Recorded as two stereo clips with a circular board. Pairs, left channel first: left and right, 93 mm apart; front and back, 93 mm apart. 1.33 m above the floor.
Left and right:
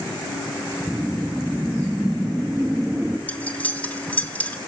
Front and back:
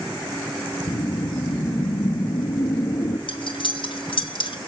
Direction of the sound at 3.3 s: 20° left.